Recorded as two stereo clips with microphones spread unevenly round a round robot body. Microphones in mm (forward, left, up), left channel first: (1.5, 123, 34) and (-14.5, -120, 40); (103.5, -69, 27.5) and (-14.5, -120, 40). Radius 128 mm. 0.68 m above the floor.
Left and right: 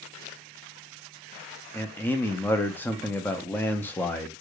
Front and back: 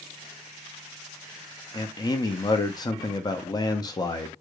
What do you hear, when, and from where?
1.7 s a man speaking: 10° left, 0.5 m